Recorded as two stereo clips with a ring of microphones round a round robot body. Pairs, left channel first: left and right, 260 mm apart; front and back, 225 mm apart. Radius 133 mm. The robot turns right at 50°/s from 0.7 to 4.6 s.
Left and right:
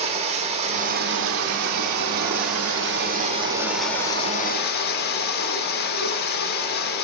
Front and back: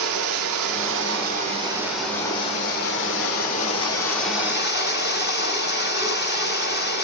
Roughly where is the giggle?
No giggle in this recording.